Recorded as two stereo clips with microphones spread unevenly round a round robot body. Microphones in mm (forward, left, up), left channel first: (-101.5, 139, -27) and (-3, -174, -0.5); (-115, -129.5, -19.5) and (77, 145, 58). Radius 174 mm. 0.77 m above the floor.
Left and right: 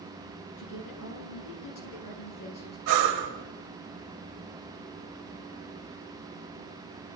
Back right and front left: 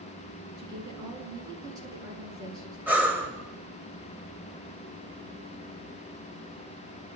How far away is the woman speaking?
About 9.5 m.